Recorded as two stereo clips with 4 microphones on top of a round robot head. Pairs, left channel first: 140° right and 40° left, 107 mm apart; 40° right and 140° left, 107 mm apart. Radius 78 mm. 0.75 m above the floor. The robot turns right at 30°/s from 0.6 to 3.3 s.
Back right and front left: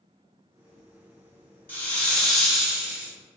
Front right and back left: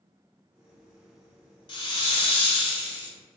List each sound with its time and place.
1.7 s a hiss: 70° right, 0.9 m; by 3.1 s 30° right, 0.9 m